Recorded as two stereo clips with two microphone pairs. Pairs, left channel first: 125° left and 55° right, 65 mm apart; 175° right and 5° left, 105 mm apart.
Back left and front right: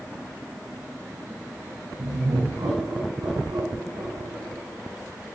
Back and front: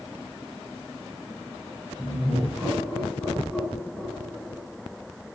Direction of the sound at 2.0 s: 80° right.